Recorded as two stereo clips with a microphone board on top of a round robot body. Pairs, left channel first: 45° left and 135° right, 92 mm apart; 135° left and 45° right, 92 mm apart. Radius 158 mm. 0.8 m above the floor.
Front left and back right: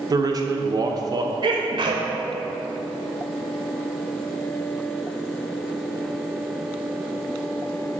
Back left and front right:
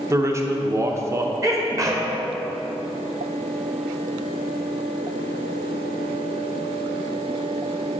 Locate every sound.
0.1 s a man speaking: 100° right, 0.9 m
1.4 s a sneeze: 100° right, 1.2 m